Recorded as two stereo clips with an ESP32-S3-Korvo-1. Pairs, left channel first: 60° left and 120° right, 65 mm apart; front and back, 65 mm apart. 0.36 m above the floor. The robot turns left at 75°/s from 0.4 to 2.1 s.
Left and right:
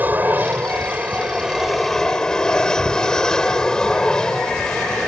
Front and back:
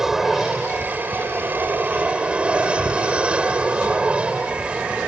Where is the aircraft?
105° right; by 5.1 s 130° left.